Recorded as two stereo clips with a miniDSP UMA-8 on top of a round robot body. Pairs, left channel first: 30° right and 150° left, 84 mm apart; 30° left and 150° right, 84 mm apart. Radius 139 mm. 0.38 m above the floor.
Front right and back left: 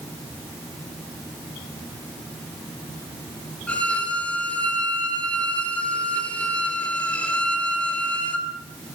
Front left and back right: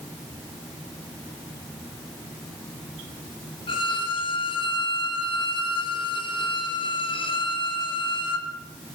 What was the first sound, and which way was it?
A violin, 45° left.